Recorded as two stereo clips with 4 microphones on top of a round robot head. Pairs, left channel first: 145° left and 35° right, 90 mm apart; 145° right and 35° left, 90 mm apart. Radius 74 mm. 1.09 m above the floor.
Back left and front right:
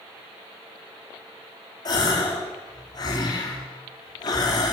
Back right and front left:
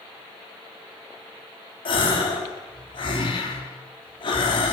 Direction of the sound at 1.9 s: 170° right.